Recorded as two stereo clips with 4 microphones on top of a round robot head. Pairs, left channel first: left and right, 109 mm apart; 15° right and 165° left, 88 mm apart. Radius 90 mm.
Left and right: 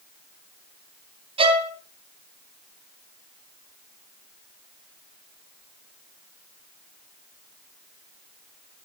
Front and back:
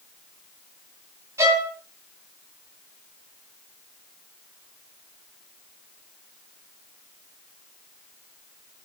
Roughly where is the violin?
Behind right.